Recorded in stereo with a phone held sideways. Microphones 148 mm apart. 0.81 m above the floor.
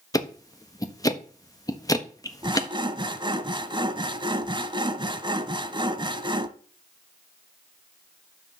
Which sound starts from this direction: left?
Ticking, at 0.1 s.